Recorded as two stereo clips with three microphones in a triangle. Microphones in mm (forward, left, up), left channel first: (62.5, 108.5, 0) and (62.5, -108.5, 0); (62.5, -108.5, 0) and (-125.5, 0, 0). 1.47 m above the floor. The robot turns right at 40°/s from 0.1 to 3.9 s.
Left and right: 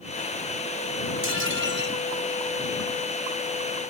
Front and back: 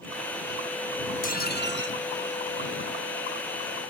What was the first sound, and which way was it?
Dishes clattering, 80° right.